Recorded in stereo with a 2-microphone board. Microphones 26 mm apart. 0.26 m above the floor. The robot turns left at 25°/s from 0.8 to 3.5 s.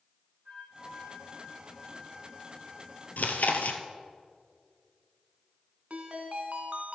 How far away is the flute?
About 3 m.